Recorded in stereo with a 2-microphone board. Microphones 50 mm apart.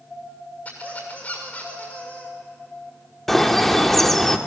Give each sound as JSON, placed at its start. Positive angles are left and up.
{"t": 0.7, "sound": "a squeak", "side_deg": 30, "distance_m": 6.5}
{"t": 3.3, "sound": "a bird", "side_deg": 5, "distance_m": 1.1}